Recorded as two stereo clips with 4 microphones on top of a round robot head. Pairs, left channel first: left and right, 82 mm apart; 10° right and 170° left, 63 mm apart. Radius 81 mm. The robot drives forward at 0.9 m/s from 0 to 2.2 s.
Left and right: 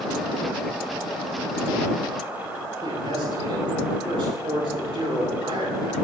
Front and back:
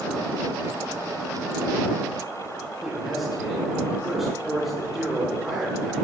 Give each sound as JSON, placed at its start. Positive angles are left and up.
{"t": 2.8, "sound": "a man speaking", "azimuth_deg": -105, "distance_m": 8.0}